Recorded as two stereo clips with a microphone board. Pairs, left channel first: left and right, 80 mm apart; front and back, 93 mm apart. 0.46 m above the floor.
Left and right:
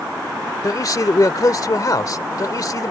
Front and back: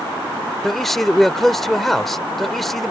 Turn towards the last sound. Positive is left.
turn(degrees=85)